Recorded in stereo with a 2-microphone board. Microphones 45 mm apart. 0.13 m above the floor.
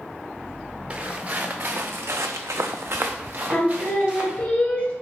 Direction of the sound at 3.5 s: 25° left (ahead or behind).